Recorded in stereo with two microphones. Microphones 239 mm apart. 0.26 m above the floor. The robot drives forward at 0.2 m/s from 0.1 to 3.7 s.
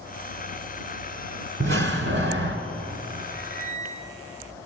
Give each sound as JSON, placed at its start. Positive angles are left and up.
{"t": 1.6, "sound": "a door slam", "side_deg": -55, "distance_m": 1.9}
{"t": 3.3, "sound": "a squeak", "side_deg": -5, "distance_m": 6.0}